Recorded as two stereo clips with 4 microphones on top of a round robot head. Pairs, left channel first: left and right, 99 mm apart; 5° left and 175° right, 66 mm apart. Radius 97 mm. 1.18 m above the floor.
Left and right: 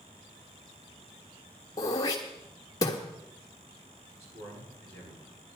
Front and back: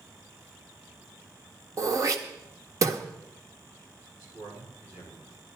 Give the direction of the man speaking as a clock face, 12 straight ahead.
4 o'clock.